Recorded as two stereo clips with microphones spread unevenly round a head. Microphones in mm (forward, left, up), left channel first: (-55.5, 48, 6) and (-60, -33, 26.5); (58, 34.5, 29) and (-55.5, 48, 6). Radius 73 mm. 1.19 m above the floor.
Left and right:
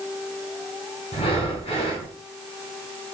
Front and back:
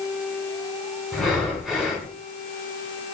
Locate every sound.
1.1 s breathing: 85° left, 4.5 m